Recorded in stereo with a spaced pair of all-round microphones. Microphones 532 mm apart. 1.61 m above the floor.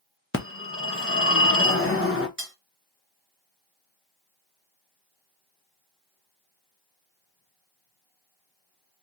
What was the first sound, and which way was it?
A phone ringing, 25° left (ahead or behind).